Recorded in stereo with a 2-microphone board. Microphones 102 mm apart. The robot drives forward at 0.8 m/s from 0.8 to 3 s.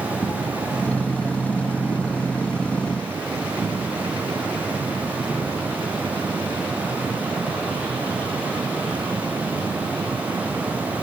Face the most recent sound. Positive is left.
turn(degrees=10)  # may be behind; listen again after turning